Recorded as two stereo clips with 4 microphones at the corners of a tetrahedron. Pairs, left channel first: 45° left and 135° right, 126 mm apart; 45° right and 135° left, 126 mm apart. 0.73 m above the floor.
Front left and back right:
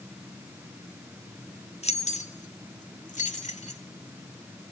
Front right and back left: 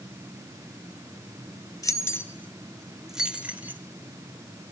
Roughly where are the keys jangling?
Ahead.